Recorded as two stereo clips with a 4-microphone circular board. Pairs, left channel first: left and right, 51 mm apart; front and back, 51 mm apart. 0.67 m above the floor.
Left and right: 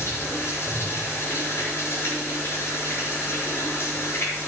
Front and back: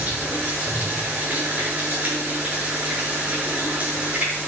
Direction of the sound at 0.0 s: 120° left.